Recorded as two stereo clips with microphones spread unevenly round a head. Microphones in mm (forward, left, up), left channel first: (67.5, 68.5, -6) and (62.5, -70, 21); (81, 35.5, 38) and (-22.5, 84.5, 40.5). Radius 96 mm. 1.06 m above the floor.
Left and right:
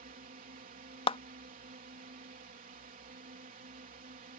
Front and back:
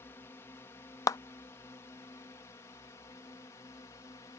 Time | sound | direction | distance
0.0 | a drone | 95° right | ?
1.1 | a clap | 35° left | ?